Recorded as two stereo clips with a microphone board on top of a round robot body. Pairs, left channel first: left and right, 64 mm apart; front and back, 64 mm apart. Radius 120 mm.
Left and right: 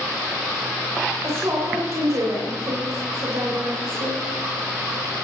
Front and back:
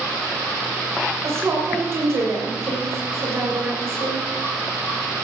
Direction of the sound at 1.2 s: 135° right.